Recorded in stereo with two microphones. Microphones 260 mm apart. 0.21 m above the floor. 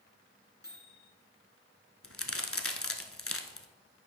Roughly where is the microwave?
Left.